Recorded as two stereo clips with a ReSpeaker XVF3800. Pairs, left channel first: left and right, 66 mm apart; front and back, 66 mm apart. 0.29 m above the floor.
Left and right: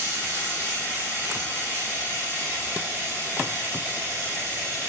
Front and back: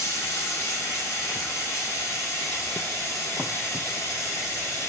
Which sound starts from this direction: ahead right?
Running water, at 0.0 s.